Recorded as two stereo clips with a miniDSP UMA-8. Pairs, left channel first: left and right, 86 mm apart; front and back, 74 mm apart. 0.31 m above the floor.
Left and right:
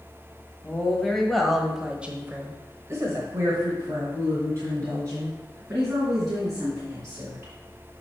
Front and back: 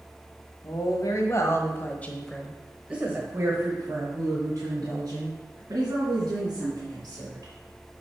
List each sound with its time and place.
0.6 s a woman speaking: 10° left, 1.8 m; by 7.5 s 150° right, 5 m